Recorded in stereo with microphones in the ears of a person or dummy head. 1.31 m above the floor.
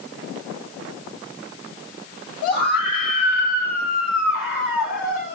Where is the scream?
55° left (ahead or behind), 8.5 m; by 5.3 s 65° left (ahead or behind), 10 m.